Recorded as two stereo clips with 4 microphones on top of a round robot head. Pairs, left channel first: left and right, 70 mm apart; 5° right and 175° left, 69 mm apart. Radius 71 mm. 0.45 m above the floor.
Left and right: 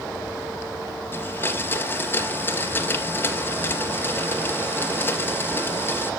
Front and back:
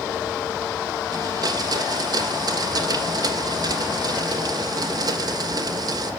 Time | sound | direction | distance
1.1 | a blender | 150° left | 3 m